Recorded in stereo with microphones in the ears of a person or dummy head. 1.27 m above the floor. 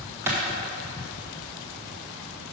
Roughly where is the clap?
Centre.